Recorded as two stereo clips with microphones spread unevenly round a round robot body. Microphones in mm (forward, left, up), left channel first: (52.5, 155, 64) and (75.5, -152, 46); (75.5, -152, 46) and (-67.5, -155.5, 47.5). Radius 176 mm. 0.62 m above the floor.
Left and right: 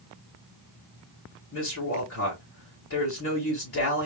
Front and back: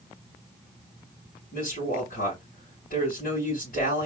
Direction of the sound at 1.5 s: 50° left.